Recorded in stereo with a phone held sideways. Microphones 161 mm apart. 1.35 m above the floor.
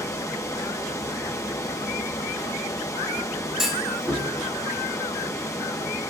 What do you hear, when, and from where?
0.0 s running water: 20° left (ahead or behind), 1.3 m
3.6 s a clunk: centre (ahead or behind), 4 m